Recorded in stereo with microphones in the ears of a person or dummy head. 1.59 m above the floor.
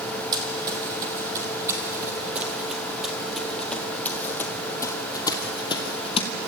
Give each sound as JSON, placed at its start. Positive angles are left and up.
{"t": 0.3, "sound": "running footsteps", "side_deg": -25, "distance_m": 3.5}